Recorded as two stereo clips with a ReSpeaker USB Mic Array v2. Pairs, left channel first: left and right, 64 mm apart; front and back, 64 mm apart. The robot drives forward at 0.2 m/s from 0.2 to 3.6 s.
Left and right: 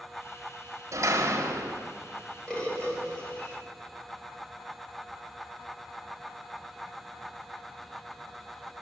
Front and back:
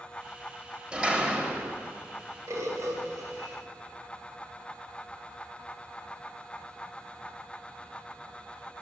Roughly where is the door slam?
Right.